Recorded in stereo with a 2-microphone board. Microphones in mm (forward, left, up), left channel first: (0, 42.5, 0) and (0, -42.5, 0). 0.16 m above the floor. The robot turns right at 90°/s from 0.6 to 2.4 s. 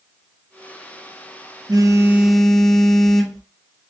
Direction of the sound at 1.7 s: 60° right.